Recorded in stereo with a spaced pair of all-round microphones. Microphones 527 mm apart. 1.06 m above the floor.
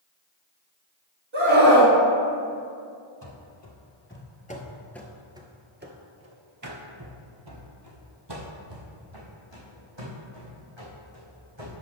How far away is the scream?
About 2.5 m.